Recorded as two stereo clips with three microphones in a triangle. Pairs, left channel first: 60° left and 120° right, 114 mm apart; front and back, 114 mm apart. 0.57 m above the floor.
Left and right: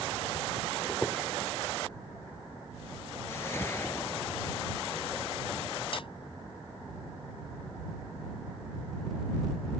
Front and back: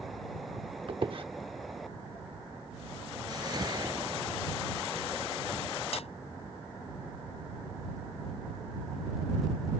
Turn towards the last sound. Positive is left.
turn(degrees=25)